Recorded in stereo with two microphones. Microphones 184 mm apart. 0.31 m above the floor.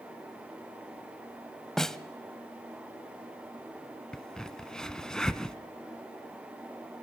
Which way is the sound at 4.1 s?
5° left (ahead or behind).